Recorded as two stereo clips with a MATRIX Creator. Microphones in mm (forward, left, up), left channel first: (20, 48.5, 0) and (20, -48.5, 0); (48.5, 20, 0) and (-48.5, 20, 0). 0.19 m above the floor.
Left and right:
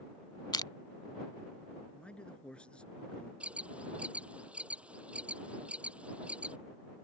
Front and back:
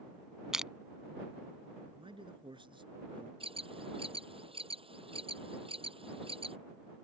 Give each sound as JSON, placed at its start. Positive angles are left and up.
{"t": 0.5, "sound": "crushing", "azimuth_deg": 100}
{"t": 1.9, "sound": "a man speaking", "azimuth_deg": 170}
{"t": 3.4, "sound": "an alarm", "azimuth_deg": -165}